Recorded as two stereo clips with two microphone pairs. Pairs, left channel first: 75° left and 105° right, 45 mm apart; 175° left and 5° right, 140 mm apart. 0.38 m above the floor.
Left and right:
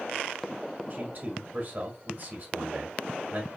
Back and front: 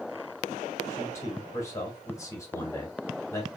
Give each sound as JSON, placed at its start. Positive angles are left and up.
{"t": 0.9, "sound": "a man speaking", "azimuth_deg": -125, "distance_m": 1.8}